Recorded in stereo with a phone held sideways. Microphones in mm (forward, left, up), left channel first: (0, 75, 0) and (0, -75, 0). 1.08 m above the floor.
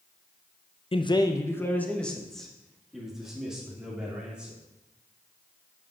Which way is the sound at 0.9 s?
40° left (ahead or behind).